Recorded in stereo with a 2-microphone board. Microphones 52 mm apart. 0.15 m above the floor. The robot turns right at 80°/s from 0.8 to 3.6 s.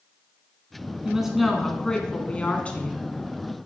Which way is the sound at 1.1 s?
15° right (ahead or behind).